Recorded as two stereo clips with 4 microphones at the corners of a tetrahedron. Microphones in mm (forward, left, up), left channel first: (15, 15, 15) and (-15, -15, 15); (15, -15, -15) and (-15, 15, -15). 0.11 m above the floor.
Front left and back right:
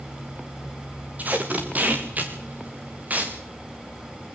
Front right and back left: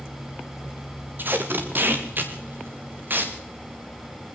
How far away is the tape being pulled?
About 4 m.